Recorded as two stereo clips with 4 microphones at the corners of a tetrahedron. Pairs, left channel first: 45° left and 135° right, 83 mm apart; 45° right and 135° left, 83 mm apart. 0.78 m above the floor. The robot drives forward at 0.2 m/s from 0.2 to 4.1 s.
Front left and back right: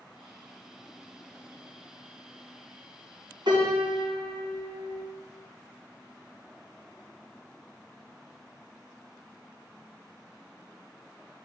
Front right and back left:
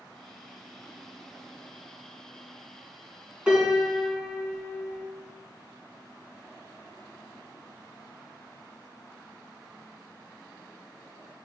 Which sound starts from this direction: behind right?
A piano, at 3.5 s.